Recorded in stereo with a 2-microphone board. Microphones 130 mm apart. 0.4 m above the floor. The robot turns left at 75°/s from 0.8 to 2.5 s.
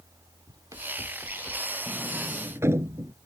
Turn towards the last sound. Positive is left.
turn(degrees=-20)  # may be behind; listen again after turning